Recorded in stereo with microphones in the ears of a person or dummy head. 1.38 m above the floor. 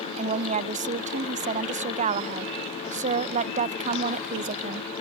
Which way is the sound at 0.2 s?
35° right (ahead or behind).